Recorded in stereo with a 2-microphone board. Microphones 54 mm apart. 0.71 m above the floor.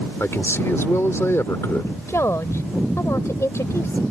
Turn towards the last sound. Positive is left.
turn(degrees=60)  # may be behind; listen again after turning